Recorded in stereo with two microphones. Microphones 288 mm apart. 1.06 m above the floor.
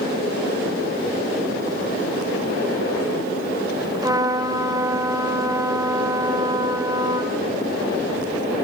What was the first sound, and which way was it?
A trumpet, 10° right (ahead or behind).